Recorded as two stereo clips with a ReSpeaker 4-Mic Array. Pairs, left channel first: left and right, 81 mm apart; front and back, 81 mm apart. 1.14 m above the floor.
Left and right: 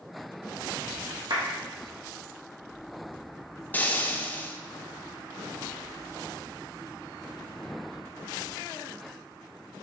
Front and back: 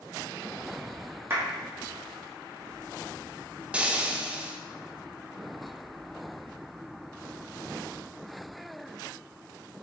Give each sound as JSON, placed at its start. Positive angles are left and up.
{"t": 1.3, "sound": "a clap", "azimuth_deg": -120, "distance_m": 1.8}
{"t": 3.7, "sound": "frying", "azimuth_deg": 125, "distance_m": 0.6}